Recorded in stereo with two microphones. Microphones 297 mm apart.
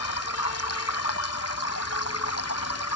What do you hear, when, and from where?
0.0 s running water: 55° left (ahead or behind)